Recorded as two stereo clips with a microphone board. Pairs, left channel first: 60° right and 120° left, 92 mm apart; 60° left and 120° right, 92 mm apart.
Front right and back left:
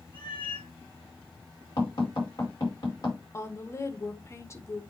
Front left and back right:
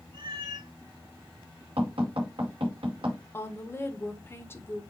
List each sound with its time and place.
0.1 s a cat meowing: 85° right, 6 m
1.8 s tapping: 105° right, 5 m
3.3 s a woman speaking: 5° right, 1.1 m